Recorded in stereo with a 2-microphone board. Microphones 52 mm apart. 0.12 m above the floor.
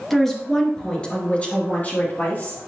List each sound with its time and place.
0.1 s a woman speaking: 5° left (ahead or behind), 2 m; by 2.6 s 45° left (ahead or behind), 3 m